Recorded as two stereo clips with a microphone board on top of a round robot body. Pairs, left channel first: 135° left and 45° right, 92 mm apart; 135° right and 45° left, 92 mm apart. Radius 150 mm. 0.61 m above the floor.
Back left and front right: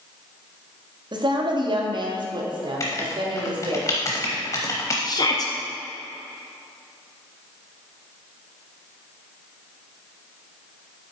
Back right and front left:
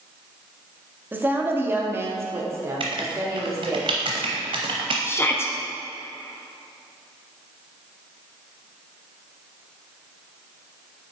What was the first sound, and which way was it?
A woman speaking, 20° right.